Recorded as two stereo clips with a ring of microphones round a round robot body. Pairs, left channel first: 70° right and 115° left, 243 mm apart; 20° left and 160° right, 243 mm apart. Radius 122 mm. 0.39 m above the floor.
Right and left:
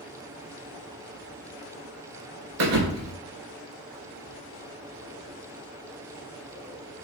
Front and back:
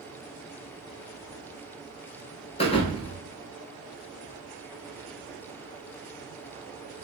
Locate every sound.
2.6 s a thud: 90° left, 0.6 m